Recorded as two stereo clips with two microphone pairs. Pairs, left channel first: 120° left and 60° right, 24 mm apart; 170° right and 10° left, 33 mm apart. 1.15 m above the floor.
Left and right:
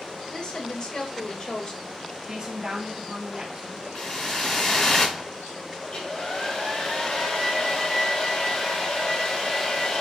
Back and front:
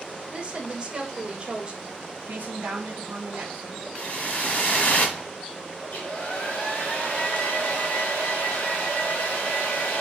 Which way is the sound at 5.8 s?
170° left.